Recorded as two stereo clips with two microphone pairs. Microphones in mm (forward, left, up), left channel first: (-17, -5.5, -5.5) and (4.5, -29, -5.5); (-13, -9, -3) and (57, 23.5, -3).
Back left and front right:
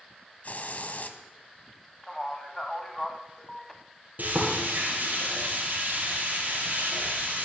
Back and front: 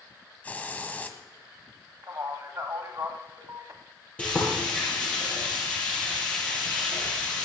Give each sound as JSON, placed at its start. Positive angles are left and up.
{"t": 0.4, "sound": "a hiss", "azimuth_deg": 140, "distance_m": 1.2}
{"t": 2.0, "sound": "a man speaking", "azimuth_deg": 50, "distance_m": 1.4}
{"t": 4.2, "sound": "frying", "azimuth_deg": -80, "distance_m": 6.5}